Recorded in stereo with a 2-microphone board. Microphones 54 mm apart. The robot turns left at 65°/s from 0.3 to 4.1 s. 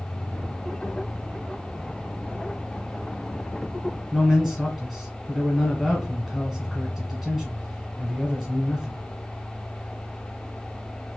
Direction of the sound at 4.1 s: Centre (ahead or behind).